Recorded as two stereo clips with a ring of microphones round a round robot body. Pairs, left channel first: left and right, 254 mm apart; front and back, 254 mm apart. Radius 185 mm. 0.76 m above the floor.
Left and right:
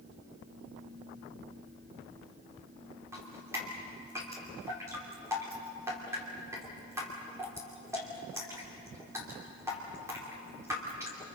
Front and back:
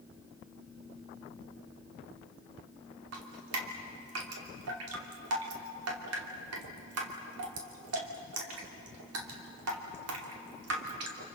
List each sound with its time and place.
3.1 s dripping: 170° right, 2.5 m